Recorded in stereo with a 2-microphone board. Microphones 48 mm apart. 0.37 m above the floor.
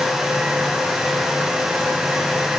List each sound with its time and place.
Only background noise.